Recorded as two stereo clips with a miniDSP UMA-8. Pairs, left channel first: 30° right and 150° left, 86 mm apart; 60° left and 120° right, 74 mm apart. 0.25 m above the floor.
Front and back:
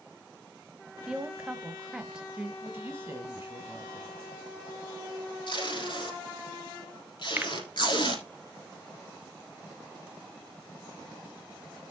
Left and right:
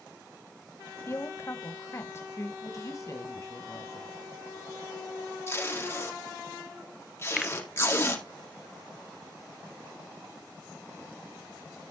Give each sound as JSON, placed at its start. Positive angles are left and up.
{"t": 1.1, "sound": "a woman speaking", "azimuth_deg": 75, "distance_m": 1.0}
{"t": 2.6, "sound": "a woman speaking", "azimuth_deg": 90, "distance_m": 1.4}
{"t": 5.5, "sound": "tape being pulled", "azimuth_deg": 5, "distance_m": 4.0}
{"t": 7.4, "sound": "a finger snap", "azimuth_deg": 170, "distance_m": 0.7}